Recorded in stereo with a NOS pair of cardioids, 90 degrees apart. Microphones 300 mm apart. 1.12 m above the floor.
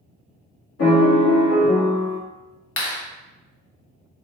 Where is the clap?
40° left, 1.0 m.